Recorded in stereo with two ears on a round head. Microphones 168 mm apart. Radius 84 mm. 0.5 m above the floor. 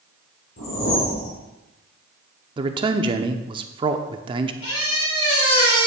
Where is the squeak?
80° left, 3.5 m.